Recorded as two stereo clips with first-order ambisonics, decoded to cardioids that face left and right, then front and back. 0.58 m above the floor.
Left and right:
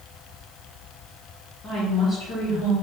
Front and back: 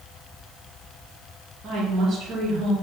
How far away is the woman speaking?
About 1.2 m.